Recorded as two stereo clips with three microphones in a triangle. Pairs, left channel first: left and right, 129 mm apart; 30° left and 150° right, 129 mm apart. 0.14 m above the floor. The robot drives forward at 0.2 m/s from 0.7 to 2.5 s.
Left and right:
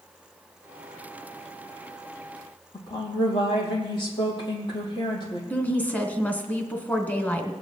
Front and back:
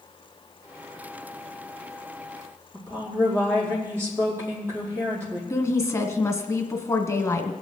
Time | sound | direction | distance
2.7 | a woman speaking | 140° left | 4.5 m
5.5 | a woman speaking | 35° left | 1.2 m